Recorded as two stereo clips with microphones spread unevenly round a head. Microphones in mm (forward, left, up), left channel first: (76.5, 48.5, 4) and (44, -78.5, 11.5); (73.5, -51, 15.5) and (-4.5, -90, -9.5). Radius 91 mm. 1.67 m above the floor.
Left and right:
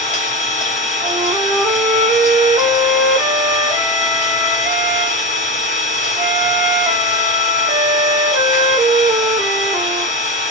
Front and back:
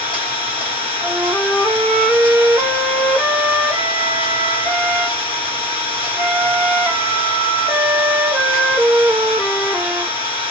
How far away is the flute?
About 0.7 m.